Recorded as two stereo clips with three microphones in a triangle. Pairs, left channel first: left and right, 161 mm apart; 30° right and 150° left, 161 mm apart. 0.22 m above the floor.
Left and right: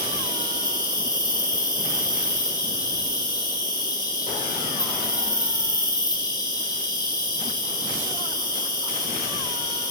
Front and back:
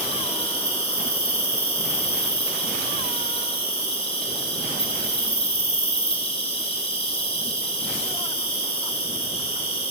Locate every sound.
0.0 s an insect: 25° left, 3.5 m